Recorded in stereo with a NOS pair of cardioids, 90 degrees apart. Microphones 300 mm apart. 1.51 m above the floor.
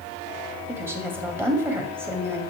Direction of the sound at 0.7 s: 10° right.